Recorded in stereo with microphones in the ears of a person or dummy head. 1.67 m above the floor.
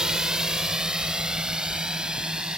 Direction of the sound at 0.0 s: 10° right (ahead or behind).